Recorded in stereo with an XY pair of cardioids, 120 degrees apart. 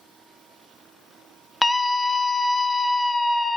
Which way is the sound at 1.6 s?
10° left.